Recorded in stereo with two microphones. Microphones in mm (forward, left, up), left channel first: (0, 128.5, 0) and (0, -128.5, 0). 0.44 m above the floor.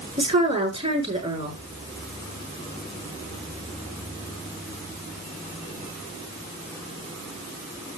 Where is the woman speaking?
25° right (ahead or behind), 6.5 m.